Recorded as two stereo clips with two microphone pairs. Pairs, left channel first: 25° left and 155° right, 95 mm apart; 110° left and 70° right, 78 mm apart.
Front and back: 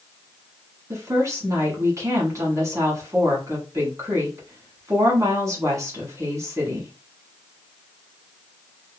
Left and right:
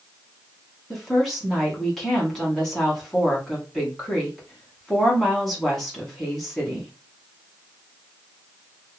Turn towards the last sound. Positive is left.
turn(degrees=-170)